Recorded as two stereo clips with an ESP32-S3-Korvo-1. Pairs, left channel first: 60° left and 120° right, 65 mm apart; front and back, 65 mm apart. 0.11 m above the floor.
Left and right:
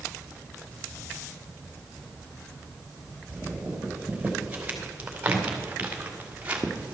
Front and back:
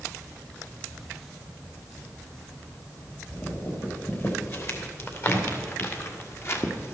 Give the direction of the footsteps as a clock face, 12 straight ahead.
2 o'clock.